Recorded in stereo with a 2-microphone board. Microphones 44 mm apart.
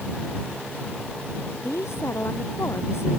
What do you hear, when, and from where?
1.6 s a woman speaking: 80° left